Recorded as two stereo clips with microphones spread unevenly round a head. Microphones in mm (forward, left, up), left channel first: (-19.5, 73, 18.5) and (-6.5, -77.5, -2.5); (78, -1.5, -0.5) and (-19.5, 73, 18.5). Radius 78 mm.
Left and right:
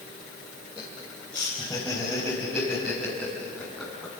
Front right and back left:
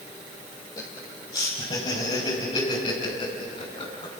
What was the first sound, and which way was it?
Laughter, 20° left.